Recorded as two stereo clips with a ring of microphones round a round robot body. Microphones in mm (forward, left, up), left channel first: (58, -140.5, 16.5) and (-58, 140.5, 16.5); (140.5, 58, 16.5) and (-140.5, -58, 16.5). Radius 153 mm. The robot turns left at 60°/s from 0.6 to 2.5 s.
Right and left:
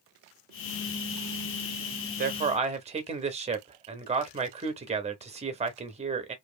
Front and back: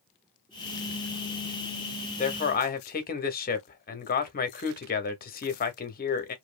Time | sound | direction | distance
2.2 | a man speaking | 75° left | 0.7 m